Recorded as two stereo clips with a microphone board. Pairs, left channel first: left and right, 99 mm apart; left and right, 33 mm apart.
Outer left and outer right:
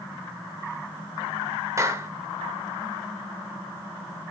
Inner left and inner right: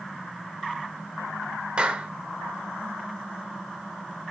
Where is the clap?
30° right (ahead or behind), 1.3 m.